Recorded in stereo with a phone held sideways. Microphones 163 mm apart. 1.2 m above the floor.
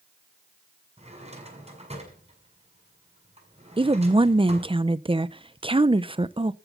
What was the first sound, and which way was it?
A drawer, 40° right (ahead or behind).